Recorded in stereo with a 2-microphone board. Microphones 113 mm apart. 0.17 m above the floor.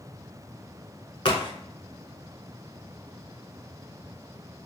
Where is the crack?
55° left (ahead or behind), 0.6 m.